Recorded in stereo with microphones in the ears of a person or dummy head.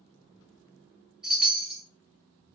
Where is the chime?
5° right (ahead or behind), 1.2 m.